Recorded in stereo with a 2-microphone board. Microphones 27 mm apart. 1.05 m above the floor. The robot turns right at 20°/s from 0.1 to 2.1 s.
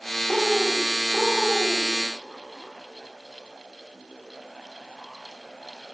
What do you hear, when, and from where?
0.3 s a bird: 40° right, 1.8 m; by 1.9 s 10° right, 1.8 m